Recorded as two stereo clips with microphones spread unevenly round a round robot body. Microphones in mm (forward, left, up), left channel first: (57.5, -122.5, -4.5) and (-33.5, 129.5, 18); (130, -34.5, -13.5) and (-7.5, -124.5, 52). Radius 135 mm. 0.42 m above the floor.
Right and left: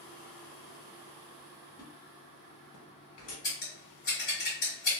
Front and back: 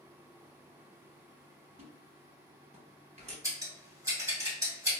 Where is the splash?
100° right, 1.1 m.